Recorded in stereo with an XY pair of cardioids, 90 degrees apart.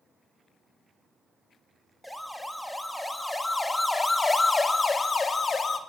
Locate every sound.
2.0 s a siren: straight ahead, 3.5 m; by 5.8 s 40° left, 2.5 m